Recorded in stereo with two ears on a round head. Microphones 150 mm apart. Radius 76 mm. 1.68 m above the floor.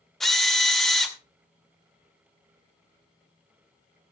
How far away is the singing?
No singing in this recording.